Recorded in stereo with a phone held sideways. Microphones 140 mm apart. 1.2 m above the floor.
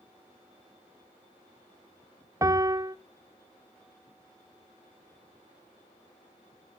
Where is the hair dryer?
No hair dryer in this recording.